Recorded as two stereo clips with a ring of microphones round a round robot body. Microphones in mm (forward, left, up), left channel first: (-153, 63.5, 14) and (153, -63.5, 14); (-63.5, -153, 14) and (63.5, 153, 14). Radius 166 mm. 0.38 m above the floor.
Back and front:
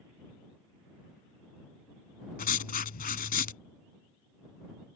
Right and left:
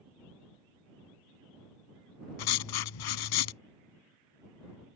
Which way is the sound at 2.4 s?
135° right.